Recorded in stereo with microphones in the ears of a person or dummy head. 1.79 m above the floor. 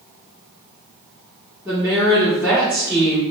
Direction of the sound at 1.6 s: 15° right (ahead or behind).